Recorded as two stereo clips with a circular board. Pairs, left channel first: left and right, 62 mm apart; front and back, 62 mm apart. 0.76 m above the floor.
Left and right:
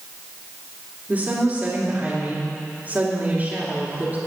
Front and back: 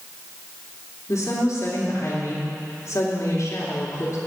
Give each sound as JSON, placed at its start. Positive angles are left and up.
{"t": 1.1, "sound": "a woman speaking", "azimuth_deg": -30, "distance_m": 2.5}